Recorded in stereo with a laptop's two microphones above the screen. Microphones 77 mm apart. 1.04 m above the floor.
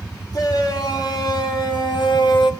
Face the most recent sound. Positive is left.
turn(degrees=70)  # may be behind; listen again after turning